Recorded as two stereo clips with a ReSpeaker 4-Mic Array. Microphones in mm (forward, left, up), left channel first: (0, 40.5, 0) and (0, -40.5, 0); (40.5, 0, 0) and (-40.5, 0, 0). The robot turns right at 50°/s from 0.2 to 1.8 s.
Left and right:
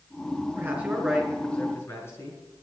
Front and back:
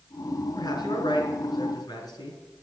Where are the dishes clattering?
No dishes clattering in this recording.